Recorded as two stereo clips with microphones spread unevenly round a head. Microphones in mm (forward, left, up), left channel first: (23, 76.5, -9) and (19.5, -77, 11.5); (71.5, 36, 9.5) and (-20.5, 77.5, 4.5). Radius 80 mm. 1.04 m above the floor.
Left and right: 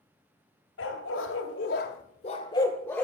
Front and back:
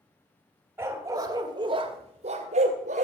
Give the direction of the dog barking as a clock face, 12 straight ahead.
9 o'clock.